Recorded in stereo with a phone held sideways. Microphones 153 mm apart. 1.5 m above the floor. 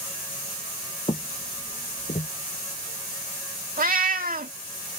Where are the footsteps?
40° left (ahead or behind); by 2.3 s 55° left (ahead or behind).